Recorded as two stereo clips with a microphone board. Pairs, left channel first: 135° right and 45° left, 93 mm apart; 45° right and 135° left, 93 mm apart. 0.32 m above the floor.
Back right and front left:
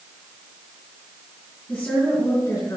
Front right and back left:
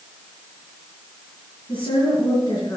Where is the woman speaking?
65° right, 3 m; by 2.8 s 90° right, 2.5 m.